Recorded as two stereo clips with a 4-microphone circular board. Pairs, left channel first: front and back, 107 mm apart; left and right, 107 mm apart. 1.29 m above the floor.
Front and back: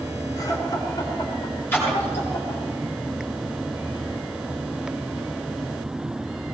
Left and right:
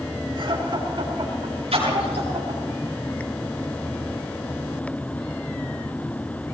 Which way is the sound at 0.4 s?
55° right.